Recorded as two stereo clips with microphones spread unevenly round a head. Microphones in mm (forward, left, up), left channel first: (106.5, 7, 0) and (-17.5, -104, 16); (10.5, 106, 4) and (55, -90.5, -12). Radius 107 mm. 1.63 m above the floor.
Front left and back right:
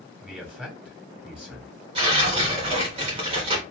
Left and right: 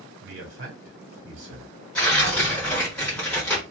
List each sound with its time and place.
0.2 s a man speaking: 55° right, 1.6 m
1.9 s tearing paper: straight behind, 1.3 m